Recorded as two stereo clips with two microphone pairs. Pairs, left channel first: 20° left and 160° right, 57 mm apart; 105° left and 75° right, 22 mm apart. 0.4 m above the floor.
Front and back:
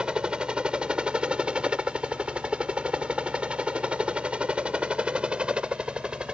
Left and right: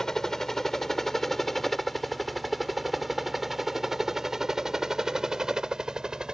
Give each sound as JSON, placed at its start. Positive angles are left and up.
{"t": 0.0, "sound": "a helicopter", "azimuth_deg": 140}